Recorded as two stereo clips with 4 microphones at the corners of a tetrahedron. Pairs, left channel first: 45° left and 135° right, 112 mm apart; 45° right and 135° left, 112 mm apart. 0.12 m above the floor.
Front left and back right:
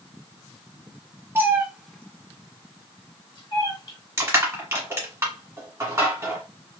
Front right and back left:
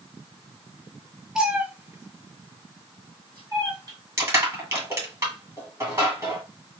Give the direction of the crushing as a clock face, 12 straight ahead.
6 o'clock.